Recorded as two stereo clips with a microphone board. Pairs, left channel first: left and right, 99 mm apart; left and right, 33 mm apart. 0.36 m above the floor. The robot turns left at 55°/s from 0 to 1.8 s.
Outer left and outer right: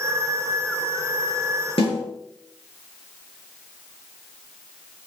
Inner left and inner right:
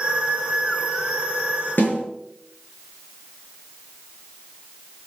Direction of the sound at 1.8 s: 75° left (ahead or behind).